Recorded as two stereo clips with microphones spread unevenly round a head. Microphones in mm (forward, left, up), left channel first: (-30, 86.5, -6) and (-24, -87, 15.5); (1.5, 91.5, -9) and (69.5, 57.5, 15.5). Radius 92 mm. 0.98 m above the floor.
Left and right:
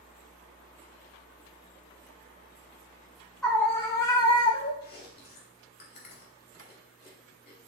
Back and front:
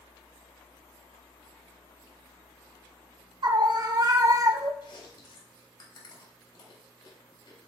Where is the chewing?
125° left, 4 m.